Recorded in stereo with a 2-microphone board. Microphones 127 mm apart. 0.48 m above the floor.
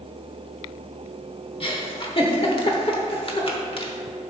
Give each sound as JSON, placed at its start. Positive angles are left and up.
{"t": 1.6, "sound": "a giggle", "side_deg": 45, "distance_m": 1.1}